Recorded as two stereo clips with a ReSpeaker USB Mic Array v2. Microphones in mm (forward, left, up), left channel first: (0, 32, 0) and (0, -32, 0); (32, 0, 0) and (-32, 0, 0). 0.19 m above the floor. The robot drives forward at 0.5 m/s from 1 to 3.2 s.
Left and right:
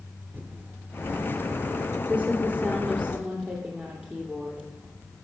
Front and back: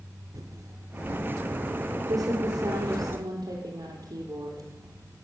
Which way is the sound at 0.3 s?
150° right.